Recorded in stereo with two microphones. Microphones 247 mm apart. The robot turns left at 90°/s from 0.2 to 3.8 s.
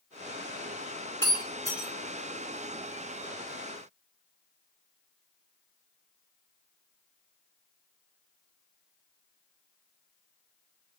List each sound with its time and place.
1.2 s breaking glass: 55° right (ahead or behind), 2 m; by 1.9 s 10° left (ahead or behind), 2 m